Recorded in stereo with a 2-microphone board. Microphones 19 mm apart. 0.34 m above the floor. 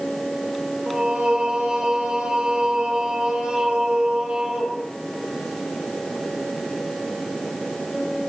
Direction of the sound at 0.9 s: 70° right (ahead or behind).